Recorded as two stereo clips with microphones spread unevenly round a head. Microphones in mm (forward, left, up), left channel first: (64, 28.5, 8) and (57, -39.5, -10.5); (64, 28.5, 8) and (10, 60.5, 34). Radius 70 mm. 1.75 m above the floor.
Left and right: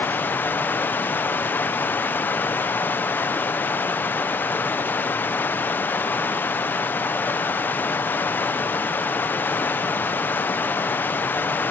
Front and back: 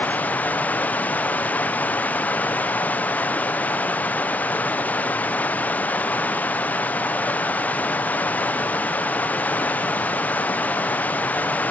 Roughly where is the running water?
Ahead left.